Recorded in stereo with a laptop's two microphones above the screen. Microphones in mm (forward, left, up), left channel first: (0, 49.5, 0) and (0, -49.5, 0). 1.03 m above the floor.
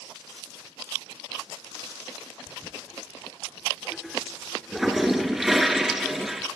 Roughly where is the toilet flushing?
Centre.